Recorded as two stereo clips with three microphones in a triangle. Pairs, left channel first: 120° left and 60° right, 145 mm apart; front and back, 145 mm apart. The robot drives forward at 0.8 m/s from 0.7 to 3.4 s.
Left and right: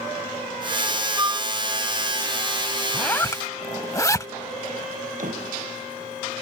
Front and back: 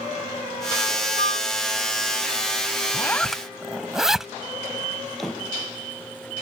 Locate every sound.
1.2 s a flute: 5° left
2.9 s a zipper: 40° left; by 4.3 s 100° left
5.2 s a door slam: 90° right